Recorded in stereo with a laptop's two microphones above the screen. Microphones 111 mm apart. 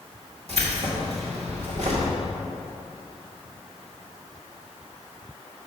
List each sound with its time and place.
0.5 s keys jangling: 60° right (ahead or behind), 1.9 m